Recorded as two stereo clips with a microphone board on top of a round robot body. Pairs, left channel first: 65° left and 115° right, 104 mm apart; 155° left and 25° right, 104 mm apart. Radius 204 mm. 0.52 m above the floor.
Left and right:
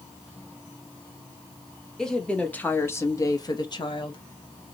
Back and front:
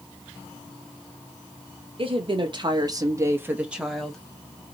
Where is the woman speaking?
15° right, 1.2 m; by 4.2 s 75° left, 1.1 m.